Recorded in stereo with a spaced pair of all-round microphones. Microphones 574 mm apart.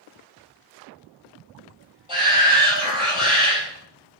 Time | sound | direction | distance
2.1 | a shout | 45° left (ahead or behind) | 6.5 m